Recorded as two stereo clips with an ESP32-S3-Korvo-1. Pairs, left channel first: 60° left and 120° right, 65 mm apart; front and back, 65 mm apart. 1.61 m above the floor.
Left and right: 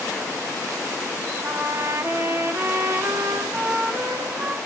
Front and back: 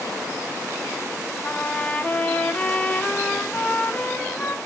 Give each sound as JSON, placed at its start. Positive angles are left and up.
{"t": 1.4, "sound": "a trumpet", "azimuth_deg": -75, "distance_m": 1.6}